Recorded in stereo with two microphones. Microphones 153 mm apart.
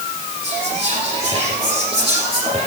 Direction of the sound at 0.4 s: 35° right (ahead or behind).